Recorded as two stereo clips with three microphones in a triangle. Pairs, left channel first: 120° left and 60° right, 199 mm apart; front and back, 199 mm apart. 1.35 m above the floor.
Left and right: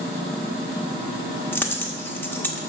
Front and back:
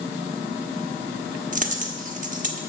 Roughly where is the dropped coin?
Behind.